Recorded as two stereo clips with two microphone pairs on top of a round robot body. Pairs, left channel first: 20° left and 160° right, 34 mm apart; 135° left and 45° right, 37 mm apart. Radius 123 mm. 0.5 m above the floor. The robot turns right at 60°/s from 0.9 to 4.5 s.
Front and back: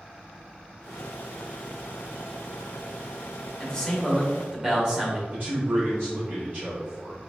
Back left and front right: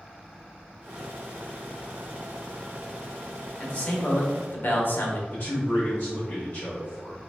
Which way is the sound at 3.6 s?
80° left.